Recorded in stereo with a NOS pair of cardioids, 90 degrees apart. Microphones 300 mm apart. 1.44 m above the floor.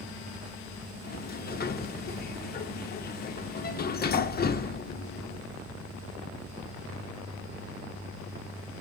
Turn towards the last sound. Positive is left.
turn(degrees=30)